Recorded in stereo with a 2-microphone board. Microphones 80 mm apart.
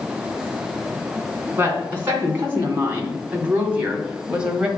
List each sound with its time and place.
1.6 s a woman speaking: 30° right (ahead or behind), 3 m; by 4.7 s 10° right (ahead or behind), 1.7 m